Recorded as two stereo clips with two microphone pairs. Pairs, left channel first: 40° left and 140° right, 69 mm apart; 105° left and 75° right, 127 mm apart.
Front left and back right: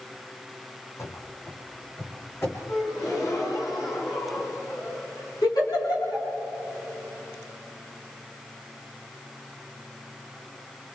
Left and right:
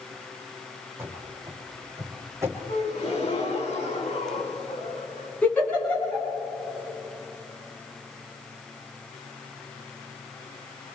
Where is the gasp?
70° left, 6 m.